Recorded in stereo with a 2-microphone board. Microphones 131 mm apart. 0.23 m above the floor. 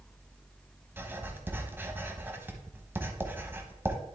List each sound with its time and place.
1.0 s writing: 15° right (ahead or behind), 1.0 m